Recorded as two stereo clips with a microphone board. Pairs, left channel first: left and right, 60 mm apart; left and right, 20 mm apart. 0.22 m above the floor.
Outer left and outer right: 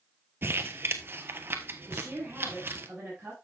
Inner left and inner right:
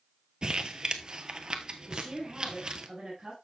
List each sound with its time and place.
0.4 s crumpling: 40° right (ahead or behind), 0.9 m
1.9 s a woman speaking: 20° right (ahead or behind), 6 m